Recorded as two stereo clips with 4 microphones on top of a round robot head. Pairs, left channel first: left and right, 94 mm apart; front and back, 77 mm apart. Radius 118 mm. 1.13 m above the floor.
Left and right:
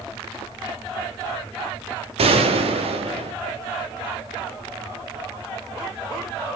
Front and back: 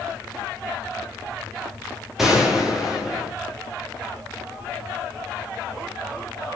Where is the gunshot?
95° right, 2.5 m.